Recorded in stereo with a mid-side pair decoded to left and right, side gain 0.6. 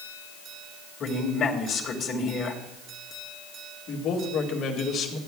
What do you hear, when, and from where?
1.0 s a man speaking: 45° left, 2.5 m
3.9 s a man speaking: 55° left, 2 m